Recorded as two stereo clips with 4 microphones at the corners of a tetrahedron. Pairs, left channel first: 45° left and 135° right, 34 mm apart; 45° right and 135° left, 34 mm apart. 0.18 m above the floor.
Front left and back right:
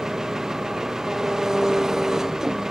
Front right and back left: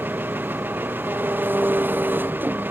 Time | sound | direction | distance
0.0 | an engine running | 150° left | ?